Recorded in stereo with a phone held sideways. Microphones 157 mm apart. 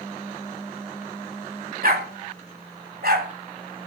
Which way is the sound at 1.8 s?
70° right (ahead or behind).